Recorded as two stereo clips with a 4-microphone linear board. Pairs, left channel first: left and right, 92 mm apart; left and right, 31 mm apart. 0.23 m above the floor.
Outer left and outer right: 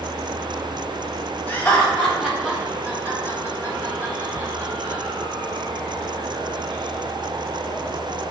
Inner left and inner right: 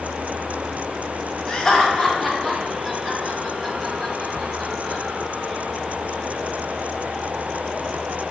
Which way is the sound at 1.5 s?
15° left (ahead or behind).